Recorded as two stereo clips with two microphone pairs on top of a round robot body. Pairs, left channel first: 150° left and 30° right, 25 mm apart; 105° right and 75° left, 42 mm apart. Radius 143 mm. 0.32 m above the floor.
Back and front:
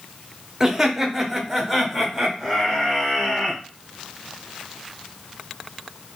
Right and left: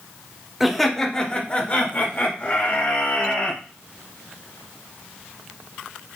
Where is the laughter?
50° right, 1.0 m; by 3.6 s 110° right, 3 m.